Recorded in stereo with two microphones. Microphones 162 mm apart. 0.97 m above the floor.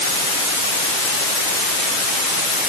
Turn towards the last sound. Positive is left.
No sound to turn to.